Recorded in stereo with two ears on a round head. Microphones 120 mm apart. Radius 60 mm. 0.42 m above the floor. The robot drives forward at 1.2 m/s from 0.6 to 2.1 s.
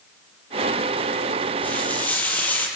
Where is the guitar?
No guitar in this recording.